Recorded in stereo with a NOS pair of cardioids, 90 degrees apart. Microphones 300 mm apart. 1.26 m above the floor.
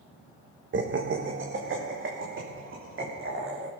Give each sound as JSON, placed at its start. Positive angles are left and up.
{"t": 0.7, "sound": "laughter", "azimuth_deg": -40, "distance_m": 1.2}